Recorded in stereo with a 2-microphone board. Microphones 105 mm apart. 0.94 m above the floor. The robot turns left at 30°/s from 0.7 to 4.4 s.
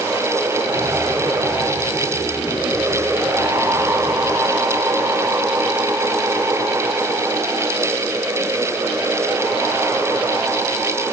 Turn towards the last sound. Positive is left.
No sound to turn to.